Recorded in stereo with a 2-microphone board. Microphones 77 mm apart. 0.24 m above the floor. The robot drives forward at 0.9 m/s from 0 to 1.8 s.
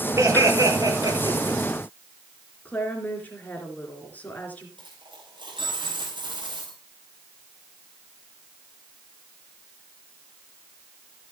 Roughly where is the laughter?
Right.